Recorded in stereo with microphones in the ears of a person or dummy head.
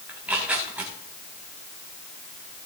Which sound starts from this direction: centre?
Tearing paper, at 0.1 s.